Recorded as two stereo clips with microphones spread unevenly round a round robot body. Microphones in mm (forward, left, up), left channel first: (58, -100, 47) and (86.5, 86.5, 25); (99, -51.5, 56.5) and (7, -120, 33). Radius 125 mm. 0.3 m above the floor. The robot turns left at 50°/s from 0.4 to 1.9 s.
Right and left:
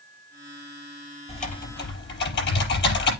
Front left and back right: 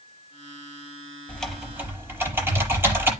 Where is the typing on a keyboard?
40° right, 6 m; by 3.1 s 70° right, 6 m.